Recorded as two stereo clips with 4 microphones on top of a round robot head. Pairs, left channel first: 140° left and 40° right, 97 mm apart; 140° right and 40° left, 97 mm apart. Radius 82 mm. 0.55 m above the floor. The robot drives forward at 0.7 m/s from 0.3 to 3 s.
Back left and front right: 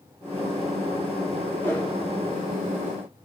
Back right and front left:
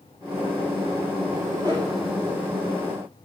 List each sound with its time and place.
1.6 s a whoosh: 75° left, 2.5 m; by 1.9 s 80° left, 2.5 m